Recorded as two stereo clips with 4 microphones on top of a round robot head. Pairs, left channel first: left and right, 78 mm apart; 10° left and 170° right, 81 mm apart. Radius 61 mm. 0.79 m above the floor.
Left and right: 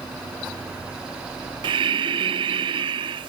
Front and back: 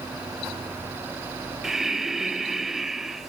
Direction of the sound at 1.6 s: 85° right.